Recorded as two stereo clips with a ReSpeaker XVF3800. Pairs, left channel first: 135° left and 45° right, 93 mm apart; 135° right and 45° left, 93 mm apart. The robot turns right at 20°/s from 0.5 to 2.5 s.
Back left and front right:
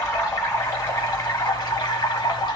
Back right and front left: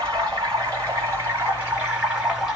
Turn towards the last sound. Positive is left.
turn(degrees=125)